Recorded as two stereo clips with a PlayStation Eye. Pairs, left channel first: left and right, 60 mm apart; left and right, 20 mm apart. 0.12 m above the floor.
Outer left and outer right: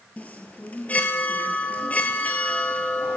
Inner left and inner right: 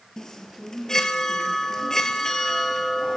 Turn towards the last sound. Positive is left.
turn(degrees=25)  # may be behind; listen again after turning